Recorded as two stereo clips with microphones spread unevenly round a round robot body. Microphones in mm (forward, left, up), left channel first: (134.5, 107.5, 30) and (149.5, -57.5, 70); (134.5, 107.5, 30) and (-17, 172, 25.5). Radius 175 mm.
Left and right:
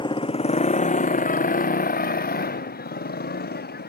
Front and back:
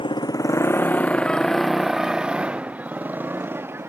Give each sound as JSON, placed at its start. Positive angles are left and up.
{"t": 0.0, "sound": "a motorcycle", "azimuth_deg": 35}